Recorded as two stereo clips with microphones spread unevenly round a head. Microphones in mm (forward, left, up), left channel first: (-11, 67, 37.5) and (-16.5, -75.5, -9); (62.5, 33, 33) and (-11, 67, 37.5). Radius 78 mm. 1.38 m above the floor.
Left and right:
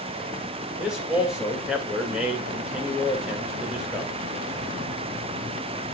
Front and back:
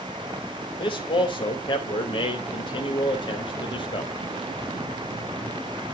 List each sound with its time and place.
0.8 s a man speaking: 5° right, 1.8 m